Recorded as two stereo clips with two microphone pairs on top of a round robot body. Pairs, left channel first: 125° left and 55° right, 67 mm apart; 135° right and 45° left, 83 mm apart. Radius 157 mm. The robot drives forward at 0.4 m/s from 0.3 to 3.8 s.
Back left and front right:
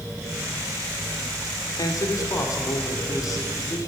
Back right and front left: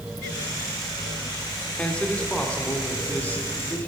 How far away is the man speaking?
About 1.9 m.